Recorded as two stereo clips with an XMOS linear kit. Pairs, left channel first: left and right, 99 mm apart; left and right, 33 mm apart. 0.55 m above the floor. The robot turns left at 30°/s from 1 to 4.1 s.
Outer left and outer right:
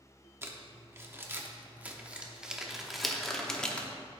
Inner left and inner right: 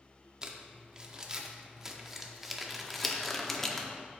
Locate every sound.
0.4 s crumpling: 25° right (ahead or behind), 0.8 m; by 3.9 s 10° left (ahead or behind), 0.8 m